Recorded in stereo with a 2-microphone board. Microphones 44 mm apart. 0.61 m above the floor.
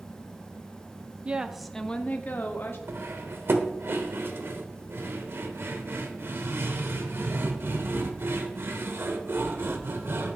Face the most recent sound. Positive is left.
turn(degrees=-60)  # may be behind; listen again after turning